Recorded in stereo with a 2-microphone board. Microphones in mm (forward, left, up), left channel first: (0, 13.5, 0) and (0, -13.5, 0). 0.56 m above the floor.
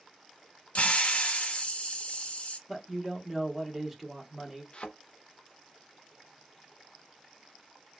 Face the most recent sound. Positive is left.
turn(degrees=40)  # may be behind; listen again after turning